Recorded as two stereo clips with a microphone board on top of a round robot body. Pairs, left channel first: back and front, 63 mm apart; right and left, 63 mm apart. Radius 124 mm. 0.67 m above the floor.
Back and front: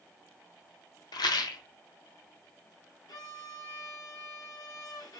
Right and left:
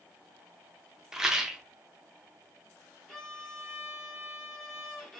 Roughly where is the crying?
No crying in this recording.